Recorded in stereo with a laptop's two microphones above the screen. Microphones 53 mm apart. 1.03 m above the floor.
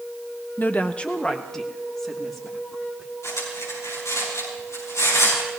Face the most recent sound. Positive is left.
turn(degrees=80)